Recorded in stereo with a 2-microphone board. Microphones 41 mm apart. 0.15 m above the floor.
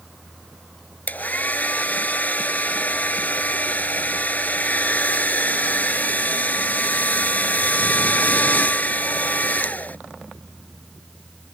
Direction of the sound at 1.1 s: 45° left (ahead or behind).